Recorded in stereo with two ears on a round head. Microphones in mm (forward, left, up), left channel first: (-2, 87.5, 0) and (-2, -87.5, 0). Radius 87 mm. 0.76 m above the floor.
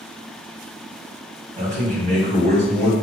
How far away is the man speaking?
About 1.4 m.